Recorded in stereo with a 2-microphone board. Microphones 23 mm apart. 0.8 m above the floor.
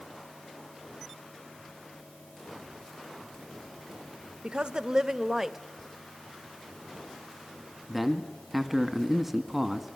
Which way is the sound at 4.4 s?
45° right (ahead or behind).